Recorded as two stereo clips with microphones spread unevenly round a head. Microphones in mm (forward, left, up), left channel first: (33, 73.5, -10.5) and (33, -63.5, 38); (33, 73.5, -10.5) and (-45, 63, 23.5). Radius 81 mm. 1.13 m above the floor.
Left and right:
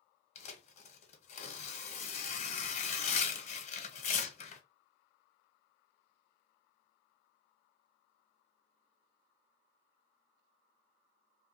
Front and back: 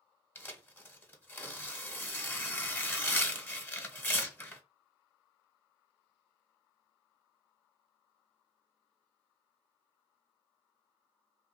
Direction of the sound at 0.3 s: 65° left.